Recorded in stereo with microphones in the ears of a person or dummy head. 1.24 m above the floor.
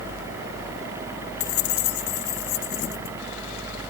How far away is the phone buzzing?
I don't hear a phone buzzing.